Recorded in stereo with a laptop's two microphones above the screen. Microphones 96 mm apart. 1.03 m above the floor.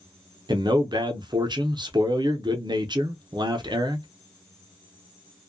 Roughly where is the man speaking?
Right.